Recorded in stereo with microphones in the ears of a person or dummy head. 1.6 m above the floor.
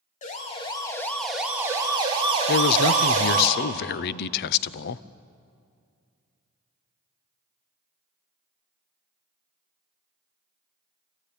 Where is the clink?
I don't hear a clink.